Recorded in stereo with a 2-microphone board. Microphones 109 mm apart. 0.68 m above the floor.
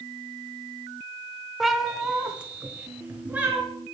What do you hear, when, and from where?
1.6 s a cat meowing: centre (ahead or behind), 1.0 m; by 3.6 s 15° right (ahead or behind), 3.5 m